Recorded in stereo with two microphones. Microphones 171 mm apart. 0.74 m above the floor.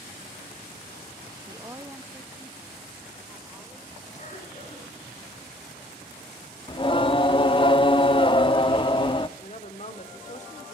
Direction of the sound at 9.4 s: 40° left (ahead or behind).